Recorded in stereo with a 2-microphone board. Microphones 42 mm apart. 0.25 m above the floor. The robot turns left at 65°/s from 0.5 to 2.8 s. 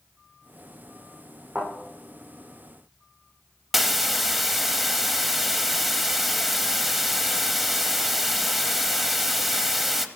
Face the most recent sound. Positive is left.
turn(degrees=-5)  # may be behind; listen again after turning